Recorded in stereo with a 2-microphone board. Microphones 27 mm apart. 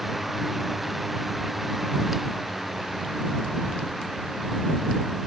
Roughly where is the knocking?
No knocking in this recording.